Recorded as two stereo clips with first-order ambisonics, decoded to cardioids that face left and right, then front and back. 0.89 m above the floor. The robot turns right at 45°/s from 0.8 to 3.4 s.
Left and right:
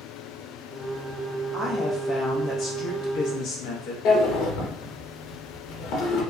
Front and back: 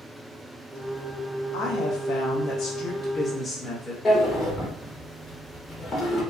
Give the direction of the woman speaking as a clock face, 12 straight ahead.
12 o'clock.